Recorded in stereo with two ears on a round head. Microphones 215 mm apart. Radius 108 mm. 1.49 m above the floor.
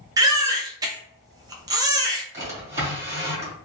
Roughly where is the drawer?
Centre.